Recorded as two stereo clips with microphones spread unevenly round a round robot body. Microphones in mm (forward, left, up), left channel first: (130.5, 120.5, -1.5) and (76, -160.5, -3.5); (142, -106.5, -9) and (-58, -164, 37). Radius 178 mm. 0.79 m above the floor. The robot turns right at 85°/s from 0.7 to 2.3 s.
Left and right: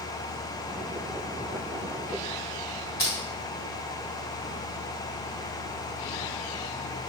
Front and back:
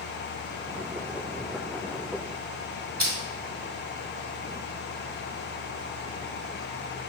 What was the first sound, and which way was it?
Crushing, 130° left.